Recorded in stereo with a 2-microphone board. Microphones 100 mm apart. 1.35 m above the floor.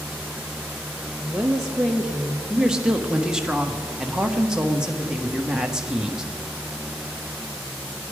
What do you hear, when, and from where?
1.2 s a woman speaking: 5° right (ahead or behind), 0.8 m
2.5 s a woman speaking: 5° right (ahead or behind), 1.2 m